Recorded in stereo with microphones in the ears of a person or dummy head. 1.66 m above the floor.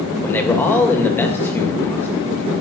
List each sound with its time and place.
0.2 s a man speaking: 10° left (ahead or behind), 2.5 m